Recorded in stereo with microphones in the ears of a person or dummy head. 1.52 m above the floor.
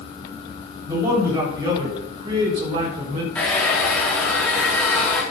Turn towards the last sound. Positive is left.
turn(degrees=5)  # may be behind; listen again after turning